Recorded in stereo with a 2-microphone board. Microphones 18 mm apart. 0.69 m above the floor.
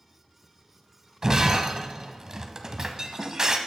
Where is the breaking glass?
35° right (ahead or behind), 1.1 m.